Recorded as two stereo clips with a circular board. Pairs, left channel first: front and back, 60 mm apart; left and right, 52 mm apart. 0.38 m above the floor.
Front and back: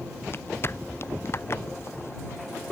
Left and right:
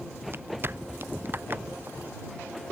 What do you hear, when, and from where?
0.3 s footsteps: 45° right; by 2.7 s 40° right